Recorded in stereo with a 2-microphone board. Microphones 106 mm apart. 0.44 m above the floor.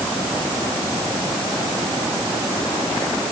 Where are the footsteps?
I don't hear footsteps.